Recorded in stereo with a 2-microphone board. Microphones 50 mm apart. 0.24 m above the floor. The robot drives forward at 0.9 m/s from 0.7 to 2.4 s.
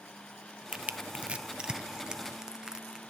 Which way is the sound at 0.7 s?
25° right (ahead or behind).